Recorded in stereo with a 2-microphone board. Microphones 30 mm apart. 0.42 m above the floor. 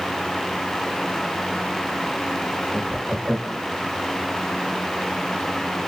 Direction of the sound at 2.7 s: 25° right (ahead or behind).